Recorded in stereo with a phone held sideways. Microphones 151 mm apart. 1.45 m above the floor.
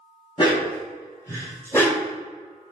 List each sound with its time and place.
0.4 s a dog barking: 30° left (ahead or behind), 2.0 m; by 2.1 s 5° left (ahead or behind), 1.3 m